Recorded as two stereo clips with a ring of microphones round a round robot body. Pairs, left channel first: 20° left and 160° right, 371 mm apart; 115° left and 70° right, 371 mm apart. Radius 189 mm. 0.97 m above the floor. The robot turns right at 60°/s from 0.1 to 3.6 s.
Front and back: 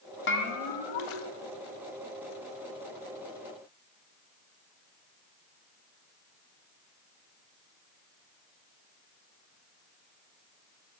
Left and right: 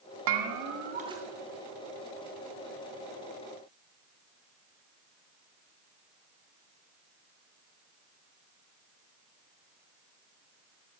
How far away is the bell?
About 0.9 m.